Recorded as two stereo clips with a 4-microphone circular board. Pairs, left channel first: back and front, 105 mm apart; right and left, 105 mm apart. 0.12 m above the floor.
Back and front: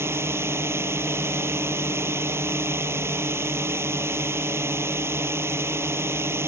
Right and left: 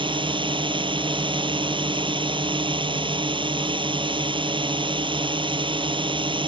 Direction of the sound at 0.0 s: 60° left.